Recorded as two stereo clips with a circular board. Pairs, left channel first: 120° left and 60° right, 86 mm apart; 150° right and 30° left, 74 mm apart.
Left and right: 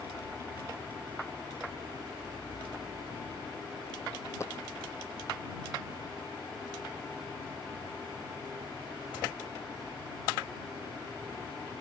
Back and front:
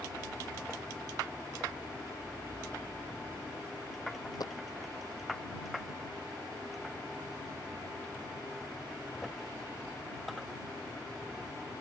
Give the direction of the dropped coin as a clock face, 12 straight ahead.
6 o'clock.